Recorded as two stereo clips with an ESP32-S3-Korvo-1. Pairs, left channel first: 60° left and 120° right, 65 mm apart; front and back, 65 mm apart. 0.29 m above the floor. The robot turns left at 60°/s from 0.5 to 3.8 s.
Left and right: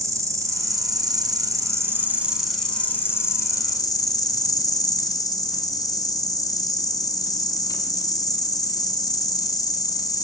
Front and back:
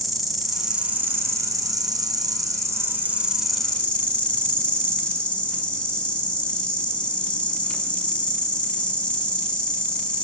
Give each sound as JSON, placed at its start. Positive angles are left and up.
{"t": 0.0, "sound": "an insect", "azimuth_deg": -90, "distance_m": 0.8}